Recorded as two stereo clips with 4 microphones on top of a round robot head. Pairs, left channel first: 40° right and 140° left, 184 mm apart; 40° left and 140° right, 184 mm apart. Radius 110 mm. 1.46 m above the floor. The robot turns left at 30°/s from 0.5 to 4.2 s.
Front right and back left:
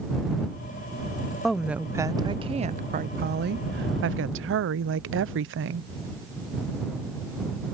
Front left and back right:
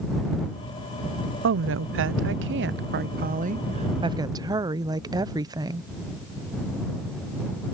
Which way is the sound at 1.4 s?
130° right.